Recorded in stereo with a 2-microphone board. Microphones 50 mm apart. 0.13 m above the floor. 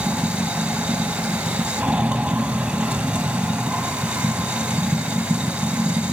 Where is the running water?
20° right (ahead or behind), 1.4 m.